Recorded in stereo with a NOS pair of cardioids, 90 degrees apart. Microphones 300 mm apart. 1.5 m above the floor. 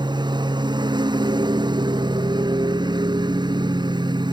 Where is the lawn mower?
15° right.